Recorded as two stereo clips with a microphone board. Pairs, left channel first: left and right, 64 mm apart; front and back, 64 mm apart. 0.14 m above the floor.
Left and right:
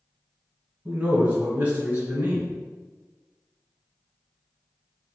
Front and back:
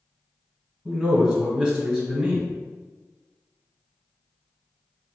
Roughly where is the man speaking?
Behind right.